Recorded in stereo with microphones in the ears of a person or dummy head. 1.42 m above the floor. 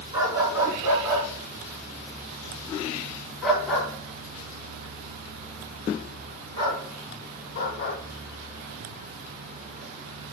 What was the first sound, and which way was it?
A dog barking, 20° right (ahead or behind).